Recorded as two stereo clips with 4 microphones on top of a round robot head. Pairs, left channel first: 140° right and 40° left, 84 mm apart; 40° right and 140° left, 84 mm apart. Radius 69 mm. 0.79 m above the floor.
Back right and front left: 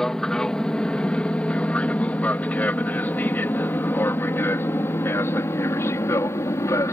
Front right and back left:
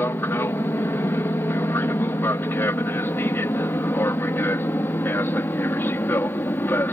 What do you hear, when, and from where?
0.0 s an aircraft: 65° right; by 7.0 s 95° right